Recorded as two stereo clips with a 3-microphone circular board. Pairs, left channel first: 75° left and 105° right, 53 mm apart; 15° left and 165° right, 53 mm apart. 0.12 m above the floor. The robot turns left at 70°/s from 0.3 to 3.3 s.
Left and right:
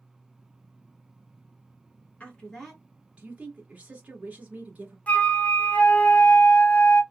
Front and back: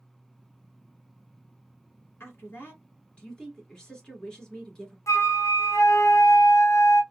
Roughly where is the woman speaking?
Ahead.